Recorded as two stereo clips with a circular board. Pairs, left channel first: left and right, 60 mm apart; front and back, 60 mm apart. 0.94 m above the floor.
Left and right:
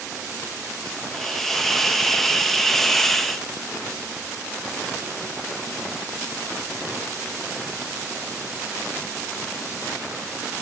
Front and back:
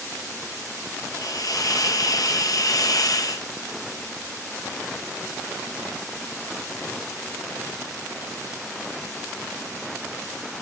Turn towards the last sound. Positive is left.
turn(degrees=5)